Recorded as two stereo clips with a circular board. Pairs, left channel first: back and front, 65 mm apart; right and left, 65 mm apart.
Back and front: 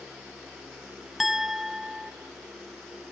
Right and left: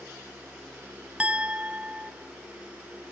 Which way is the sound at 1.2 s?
80° left.